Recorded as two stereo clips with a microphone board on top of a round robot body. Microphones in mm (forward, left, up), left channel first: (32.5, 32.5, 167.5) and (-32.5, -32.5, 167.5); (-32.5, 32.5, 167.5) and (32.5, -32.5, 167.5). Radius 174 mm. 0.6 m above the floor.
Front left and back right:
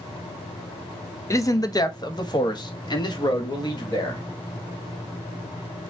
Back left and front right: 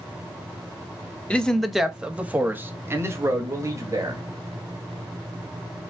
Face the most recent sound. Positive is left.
turn(degrees=5)